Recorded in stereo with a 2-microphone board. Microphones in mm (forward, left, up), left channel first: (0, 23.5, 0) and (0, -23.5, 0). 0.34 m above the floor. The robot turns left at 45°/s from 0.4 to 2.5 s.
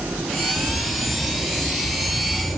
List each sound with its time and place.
0.6 s a bird: 145° left, 7.5 m; by 2.6 s 60° left, 7.5 m